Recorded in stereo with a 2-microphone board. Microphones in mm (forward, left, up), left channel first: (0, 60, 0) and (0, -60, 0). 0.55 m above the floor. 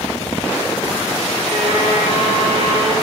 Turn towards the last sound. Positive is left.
turn(degrees=-50)  # may be behind; listen again after turning